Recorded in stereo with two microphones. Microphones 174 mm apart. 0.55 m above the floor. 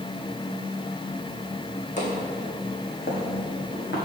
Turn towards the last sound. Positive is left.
turn(degrees=70)  # may be behind; listen again after turning